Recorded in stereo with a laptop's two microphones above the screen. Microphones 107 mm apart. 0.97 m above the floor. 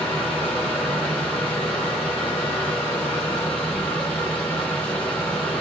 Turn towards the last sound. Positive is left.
turn(degrees=15)  # may be behind; listen again after turning